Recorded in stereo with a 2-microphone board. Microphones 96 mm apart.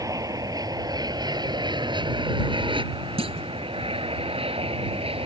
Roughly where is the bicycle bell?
I don't hear a bicycle bell.